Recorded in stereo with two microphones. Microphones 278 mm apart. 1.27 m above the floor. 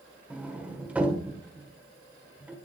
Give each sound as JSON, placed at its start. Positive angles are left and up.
{"t": 0.3, "sound": "a sliding door", "side_deg": -5, "distance_m": 1.8}